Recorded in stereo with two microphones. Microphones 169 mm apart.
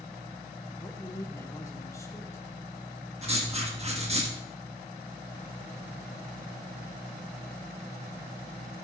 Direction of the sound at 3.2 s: 40° right (ahead or behind).